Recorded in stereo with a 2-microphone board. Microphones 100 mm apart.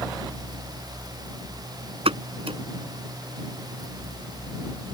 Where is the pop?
75° right (ahead or behind).